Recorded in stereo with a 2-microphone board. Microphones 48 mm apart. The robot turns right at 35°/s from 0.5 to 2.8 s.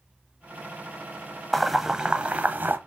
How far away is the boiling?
About 0.9 m.